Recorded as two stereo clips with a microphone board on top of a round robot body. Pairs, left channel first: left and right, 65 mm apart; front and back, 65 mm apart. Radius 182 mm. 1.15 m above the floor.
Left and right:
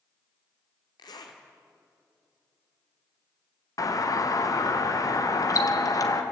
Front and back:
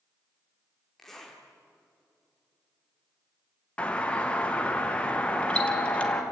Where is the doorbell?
70° left, 2 m.